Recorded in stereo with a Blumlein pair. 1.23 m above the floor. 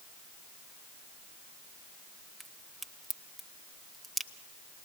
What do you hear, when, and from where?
2.4 s a crack: 5° right, 1.4 m